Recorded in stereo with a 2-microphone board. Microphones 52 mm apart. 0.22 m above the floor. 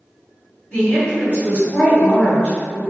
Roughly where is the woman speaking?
Left.